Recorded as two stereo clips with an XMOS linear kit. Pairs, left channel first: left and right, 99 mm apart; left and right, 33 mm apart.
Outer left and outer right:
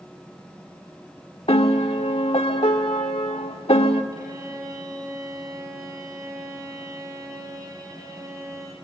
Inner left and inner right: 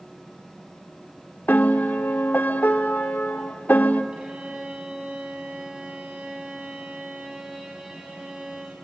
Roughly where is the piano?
Left.